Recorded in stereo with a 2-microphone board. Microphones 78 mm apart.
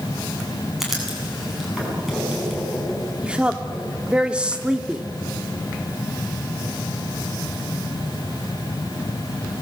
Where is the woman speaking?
15° right (ahead or behind), 1.5 m.